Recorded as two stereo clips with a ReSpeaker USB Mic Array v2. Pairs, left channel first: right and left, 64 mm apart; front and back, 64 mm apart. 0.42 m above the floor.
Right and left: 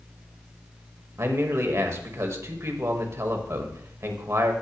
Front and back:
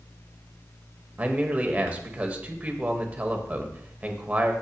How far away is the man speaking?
About 1.6 m.